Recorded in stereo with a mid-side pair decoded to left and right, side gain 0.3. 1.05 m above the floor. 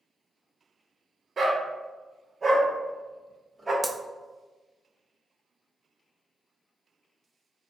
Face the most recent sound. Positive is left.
turn(degrees=0)